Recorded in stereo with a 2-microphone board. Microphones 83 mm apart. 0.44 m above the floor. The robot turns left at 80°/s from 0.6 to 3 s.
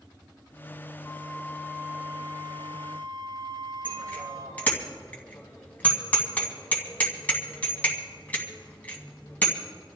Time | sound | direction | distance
1.0 | a flute | 60° left | 4 m
3.9 | a bicycle bell | 20° left (ahead or behind) | 2.5 m